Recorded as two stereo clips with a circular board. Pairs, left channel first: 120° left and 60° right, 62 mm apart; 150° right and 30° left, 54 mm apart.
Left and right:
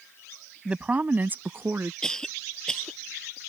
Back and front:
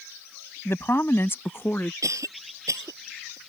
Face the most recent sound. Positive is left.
turn(degrees=40)